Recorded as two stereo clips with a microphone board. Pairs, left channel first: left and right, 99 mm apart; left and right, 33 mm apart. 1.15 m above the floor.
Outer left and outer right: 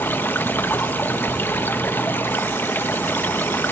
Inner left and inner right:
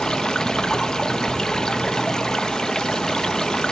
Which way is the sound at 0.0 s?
20° left (ahead or behind).